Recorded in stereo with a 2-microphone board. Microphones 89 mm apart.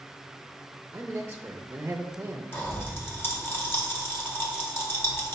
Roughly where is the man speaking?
Centre.